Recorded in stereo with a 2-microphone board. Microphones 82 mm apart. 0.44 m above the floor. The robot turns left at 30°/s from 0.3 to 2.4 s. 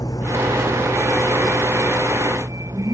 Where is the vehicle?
45° left (ahead or behind); by 2.9 s 45° right (ahead or behind).